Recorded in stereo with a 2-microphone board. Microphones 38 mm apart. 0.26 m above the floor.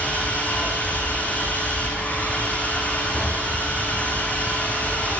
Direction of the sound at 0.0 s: 40° left (ahead or behind).